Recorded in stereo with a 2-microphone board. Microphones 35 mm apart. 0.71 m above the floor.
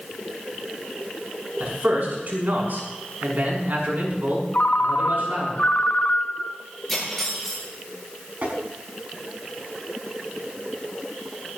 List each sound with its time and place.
1.6 s a man speaking: 60° right (ahead or behind), 6 m
4.5 s a ringtone: 45° left (ahead or behind), 0.8 m
6.9 s cutlery clinking: 5° left (ahead or behind), 8 m
8.4 s tapping: 45° right (ahead or behind), 5 m